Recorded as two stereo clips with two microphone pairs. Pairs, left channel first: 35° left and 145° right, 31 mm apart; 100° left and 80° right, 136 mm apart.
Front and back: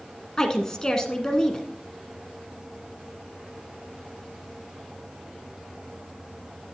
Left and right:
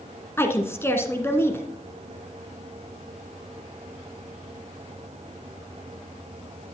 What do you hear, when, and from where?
0.4 s a woman speaking: 60° left, 1.2 m